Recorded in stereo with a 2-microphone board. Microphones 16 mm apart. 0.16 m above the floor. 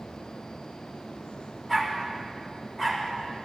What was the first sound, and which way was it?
A dog barking, 20° left (ahead or behind).